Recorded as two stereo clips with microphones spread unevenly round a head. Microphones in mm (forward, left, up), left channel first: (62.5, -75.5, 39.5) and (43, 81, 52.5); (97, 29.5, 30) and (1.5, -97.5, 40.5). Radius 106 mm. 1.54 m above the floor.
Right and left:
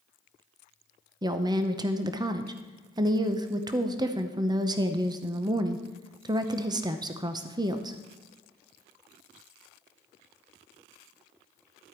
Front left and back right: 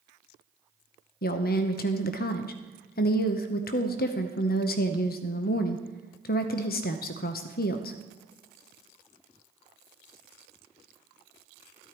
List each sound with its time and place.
1.2 s a woman speaking: 40° left, 0.7 m